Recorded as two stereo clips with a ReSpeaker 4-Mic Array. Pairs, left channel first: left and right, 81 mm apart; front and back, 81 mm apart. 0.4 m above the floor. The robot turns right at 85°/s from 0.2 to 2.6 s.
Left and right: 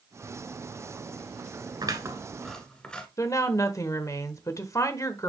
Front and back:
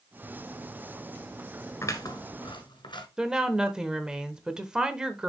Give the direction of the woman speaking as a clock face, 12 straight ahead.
9 o'clock.